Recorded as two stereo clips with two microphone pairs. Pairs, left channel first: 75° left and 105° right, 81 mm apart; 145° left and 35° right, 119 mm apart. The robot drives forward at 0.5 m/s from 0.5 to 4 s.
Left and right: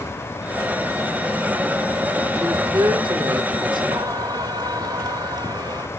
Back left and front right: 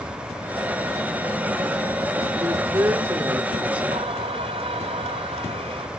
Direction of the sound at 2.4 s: 90° right.